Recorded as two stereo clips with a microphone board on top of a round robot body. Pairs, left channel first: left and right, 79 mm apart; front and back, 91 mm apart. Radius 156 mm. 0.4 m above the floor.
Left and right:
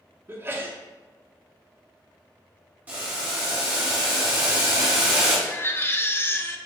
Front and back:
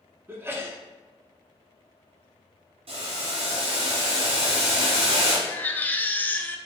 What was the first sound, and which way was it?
A sneeze, 130° right.